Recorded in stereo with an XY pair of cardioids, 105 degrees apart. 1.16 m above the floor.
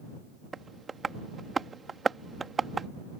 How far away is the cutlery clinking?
I don't hear cutlery clinking.